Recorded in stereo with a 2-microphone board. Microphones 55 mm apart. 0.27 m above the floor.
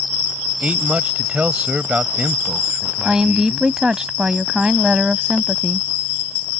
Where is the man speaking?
25° right (ahead or behind); by 3.7 s 20° right (ahead or behind).